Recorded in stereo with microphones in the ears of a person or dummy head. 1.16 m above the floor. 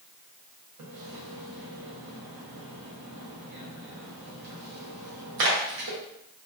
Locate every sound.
0.8 s a splash: 75° right (ahead or behind), 0.8 m